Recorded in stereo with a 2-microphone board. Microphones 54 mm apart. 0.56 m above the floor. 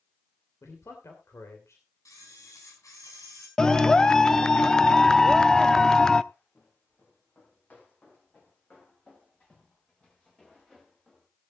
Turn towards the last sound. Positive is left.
turn(degrees=10)  # may be behind; listen again after turning